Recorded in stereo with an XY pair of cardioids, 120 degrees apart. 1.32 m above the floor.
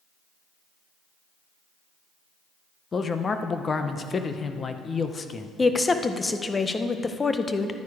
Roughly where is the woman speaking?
Ahead.